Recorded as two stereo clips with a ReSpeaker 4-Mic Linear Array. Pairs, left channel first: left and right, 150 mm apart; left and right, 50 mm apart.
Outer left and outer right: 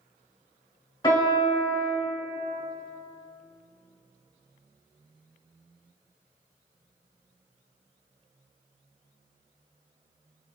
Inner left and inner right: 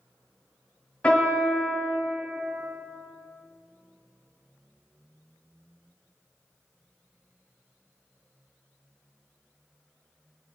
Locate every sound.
1.0 s a piano: 30° left (ahead or behind), 1.7 m